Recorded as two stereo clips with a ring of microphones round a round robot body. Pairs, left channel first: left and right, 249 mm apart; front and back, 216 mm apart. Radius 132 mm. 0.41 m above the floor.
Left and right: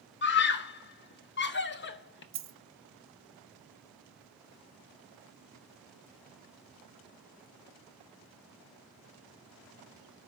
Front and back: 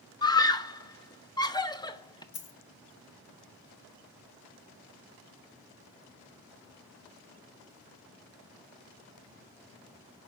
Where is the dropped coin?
50° right, 1.0 m.